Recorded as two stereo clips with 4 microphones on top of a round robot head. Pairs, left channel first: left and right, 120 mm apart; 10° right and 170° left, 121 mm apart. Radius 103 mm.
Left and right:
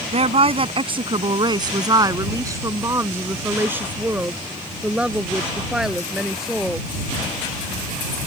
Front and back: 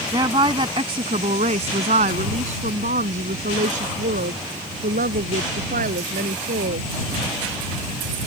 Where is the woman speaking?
125° right; by 6.9 s straight behind.